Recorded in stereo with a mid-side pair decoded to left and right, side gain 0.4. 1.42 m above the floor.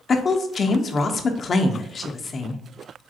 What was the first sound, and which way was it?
A woman speaking, 50° left.